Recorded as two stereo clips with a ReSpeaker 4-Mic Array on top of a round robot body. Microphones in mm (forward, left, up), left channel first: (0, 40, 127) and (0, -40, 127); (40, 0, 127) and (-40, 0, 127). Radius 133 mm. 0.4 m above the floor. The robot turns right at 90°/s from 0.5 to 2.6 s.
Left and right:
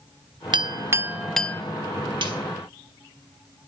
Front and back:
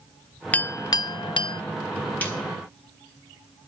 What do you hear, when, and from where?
0.5 s a clink: 70° right, 0.7 m; by 1.6 s 30° left, 0.7 m
2.2 s a snare drum: 70° right, 5 m; by 2.4 s 55° right, 5 m